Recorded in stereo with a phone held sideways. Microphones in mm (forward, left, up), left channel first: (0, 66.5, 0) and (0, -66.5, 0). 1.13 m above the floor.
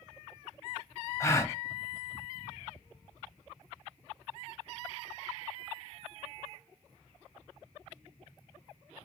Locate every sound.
1.2 s a gasp: 20° left (ahead or behind), 0.7 m